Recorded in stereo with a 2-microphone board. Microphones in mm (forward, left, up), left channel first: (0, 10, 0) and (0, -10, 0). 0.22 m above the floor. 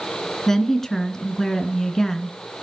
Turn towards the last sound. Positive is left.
turn(degrees=25)  # may be behind; listen again after turning